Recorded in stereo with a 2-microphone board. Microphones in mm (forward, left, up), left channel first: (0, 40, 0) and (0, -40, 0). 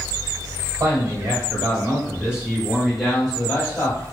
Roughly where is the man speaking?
Right.